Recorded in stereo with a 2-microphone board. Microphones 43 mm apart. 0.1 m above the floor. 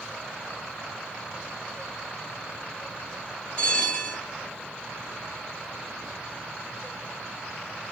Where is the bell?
25° left (ahead or behind), 1.5 m.